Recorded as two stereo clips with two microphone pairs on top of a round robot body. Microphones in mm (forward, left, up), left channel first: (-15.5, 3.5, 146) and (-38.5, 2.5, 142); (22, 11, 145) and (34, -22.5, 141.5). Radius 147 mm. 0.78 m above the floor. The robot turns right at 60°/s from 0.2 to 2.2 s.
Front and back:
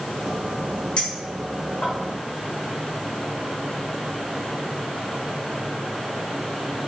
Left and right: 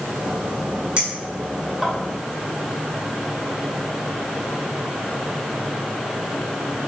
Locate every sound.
1.0 s a clink: 20° right, 2 m; by 1.9 s 40° left, 2 m